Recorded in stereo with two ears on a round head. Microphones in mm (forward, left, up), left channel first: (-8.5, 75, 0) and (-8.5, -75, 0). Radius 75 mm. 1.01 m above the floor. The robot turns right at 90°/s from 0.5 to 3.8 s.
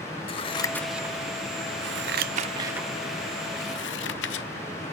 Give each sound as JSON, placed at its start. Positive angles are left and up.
{"t": 0.3, "sound": "scissors", "side_deg": 35, "distance_m": 0.7}